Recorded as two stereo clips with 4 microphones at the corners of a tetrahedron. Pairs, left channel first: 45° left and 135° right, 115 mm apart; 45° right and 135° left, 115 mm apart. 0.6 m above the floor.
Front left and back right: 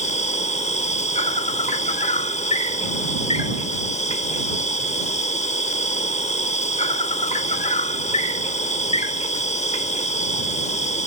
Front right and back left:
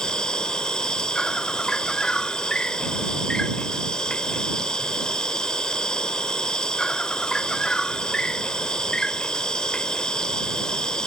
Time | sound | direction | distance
0.0 | an insect | 40° left | ?